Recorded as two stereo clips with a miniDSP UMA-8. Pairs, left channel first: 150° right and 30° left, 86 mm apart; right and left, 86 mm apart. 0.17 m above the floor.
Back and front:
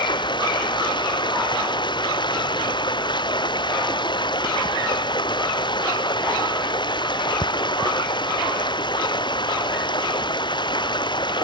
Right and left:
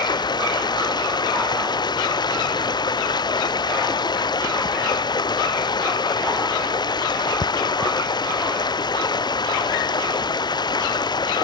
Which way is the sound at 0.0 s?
125° right.